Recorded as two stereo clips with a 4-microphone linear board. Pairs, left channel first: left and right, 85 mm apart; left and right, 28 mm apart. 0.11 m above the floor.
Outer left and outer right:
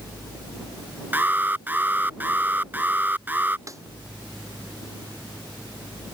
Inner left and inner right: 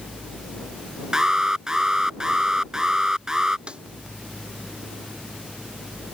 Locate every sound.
1.1 s an alarm: 20° right (ahead or behind)
3.7 s a snare drum: 40° right (ahead or behind)